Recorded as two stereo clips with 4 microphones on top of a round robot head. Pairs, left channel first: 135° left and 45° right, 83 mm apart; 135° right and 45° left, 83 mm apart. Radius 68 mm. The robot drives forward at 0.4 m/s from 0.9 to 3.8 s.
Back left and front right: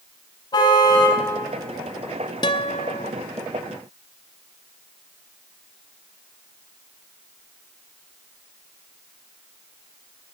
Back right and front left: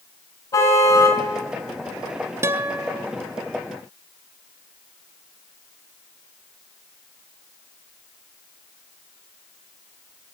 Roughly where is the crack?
I don't hear a crack.